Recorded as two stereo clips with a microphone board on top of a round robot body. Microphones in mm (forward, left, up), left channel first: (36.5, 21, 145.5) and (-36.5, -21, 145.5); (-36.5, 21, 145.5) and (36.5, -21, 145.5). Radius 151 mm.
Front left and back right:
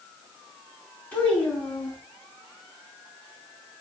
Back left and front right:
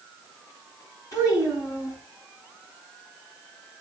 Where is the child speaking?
100° left, 5.5 m.